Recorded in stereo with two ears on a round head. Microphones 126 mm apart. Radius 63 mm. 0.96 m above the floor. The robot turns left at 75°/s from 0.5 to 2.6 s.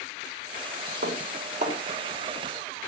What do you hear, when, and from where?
1.0 s dishes clattering: 80° right, 2.5 m; by 1.8 s 45° right (ahead or behind), 2.5 m